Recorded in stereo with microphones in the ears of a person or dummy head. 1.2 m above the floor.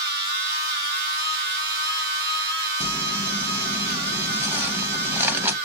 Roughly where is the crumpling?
Centre.